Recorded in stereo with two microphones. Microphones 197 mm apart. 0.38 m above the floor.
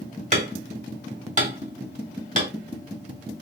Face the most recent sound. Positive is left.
turn(degrees=-40)  # may be behind; listen again after turning